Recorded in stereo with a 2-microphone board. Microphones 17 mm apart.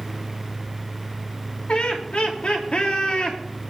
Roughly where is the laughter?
Left.